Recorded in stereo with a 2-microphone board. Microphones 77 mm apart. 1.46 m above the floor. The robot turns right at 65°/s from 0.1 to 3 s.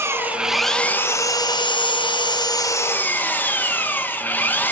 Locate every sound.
0.0 s an engine running: 30° right, 1.2 m; by 4.7 s 155° left, 1.2 m